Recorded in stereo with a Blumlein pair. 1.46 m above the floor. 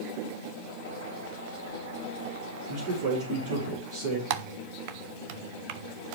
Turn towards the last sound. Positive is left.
turn(degrees=-45)